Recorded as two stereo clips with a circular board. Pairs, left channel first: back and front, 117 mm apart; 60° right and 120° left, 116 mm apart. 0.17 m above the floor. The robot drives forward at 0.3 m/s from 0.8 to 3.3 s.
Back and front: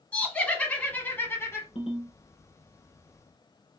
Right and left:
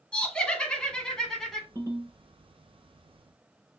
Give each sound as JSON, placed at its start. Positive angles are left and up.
{"t": 0.1, "sound": "laughter", "azimuth_deg": -125, "distance_m": 1.0}
{"t": 1.8, "sound": "a ringtone", "azimuth_deg": 175, "distance_m": 1.5}